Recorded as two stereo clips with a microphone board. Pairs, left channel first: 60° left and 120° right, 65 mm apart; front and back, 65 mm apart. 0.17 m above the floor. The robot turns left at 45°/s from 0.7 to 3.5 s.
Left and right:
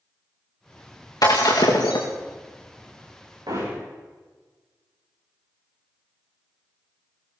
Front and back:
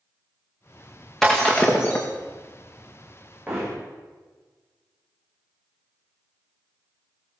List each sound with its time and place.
1.2 s breaking glass: 85° left, 4.5 m; by 2.1 s 45° left, 4.5 m
3.5 s hammering: 110° right, 9.5 m